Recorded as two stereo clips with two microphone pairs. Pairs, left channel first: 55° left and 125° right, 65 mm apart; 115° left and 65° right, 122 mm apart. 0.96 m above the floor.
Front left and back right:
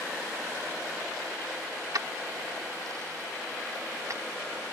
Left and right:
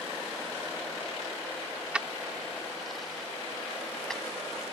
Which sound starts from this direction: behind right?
Keys jangling, at 1.9 s.